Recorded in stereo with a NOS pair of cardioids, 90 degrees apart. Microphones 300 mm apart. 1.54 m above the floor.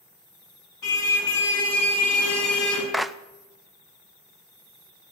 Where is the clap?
Straight ahead, 0.5 m.